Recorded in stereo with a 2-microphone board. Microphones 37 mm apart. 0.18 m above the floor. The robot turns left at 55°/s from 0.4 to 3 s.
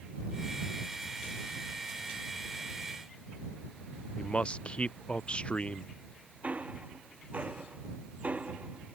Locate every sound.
4.2 s a man speaking: 35° left (ahead or behind)
6.4 s ticking: 35° right (ahead or behind)